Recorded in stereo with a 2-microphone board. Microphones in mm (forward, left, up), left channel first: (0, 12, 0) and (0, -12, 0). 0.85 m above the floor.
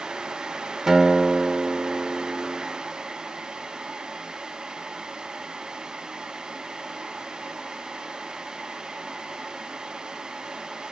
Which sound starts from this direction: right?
A guitar, at 0.9 s.